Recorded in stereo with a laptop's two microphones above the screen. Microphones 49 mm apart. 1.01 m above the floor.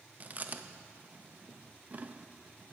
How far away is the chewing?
About 0.5 m.